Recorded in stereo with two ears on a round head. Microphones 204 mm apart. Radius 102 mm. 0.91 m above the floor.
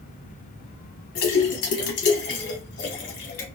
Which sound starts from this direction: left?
A splash, at 1.1 s.